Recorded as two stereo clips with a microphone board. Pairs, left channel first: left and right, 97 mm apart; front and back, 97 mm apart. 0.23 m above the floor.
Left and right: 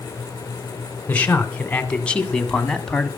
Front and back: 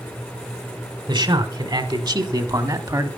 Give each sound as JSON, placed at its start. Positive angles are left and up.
{"t": 1.1, "sound": "a man speaking", "azimuth_deg": 160, "distance_m": 2.5}